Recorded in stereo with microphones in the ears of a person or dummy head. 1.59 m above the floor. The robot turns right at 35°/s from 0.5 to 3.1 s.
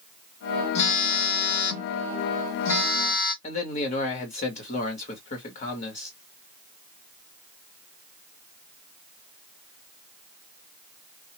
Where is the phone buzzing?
40° left, 0.8 m; by 3.3 s 120° left, 0.8 m.